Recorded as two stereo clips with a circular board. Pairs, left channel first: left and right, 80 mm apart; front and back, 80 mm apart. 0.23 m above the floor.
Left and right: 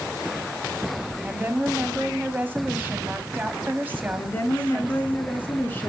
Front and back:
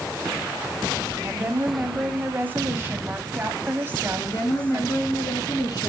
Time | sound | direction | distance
1.2 | a woman speaking | 140° right | 1.7 m
4.2 | a woman speaking | 25° left | 3 m